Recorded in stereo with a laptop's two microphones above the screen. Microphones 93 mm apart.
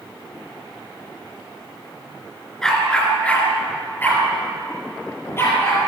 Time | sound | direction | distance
2.6 | a dog barking | 5° left (ahead or behind) | 3.5 m